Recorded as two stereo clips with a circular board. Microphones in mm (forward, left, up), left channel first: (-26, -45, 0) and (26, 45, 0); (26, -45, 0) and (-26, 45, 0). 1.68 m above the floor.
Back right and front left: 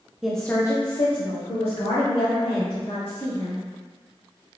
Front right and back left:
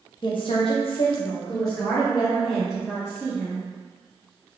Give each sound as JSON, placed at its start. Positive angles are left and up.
{"t": 0.2, "sound": "a woman speaking", "azimuth_deg": -25, "distance_m": 0.6}